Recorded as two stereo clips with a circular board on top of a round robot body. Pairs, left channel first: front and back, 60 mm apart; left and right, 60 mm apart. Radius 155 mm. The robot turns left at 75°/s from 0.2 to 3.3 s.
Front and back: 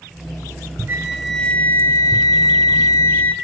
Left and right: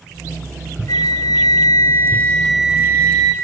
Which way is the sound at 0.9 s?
120° left.